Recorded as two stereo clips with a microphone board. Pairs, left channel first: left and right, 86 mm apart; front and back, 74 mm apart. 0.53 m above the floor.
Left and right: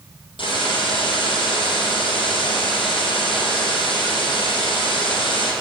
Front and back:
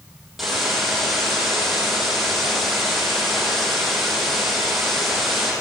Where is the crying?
No crying in this recording.